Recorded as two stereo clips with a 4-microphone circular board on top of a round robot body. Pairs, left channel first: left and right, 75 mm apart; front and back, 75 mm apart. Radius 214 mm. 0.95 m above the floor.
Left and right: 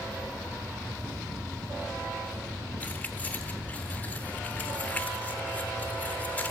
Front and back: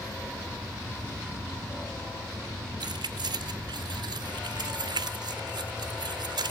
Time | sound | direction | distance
2.8 | keys jangling | 165° left | 0.6 m